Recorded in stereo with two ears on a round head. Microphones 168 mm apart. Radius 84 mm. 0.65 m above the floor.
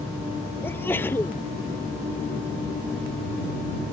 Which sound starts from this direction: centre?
A sneeze, at 0.6 s.